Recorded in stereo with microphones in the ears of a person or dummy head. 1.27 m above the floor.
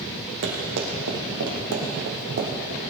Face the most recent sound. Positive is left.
turn(degrees=-35)  # may be behind; listen again after turning